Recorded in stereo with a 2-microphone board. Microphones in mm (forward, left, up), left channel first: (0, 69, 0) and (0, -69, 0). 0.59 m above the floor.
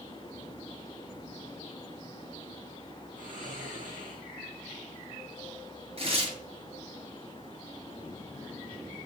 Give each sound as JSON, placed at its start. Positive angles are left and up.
{"t": 3.2, "sound": "snoring", "side_deg": -70, "distance_m": 9.0}
{"t": 6.0, "sound": "tearing paper", "side_deg": -45, "distance_m": 8.5}